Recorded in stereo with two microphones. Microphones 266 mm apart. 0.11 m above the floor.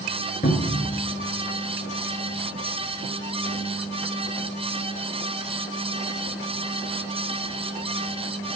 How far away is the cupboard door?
About 1.3 m.